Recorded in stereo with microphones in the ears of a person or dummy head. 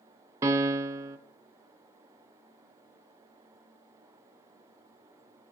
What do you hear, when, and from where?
0.4 s a piano: 15° right (ahead or behind), 0.6 m